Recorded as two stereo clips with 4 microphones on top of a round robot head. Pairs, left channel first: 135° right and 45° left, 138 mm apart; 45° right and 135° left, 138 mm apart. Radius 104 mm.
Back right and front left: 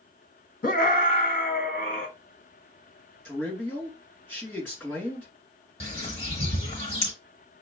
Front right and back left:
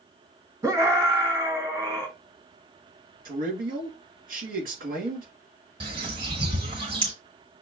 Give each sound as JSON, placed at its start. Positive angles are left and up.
{"t": 0.6, "sound": "a scream", "azimuth_deg": -155, "distance_m": 1.5}
{"t": 3.2, "sound": "a man speaking", "azimuth_deg": 145, "distance_m": 2.0}
{"t": 5.8, "sound": "a bird", "azimuth_deg": -175, "distance_m": 0.9}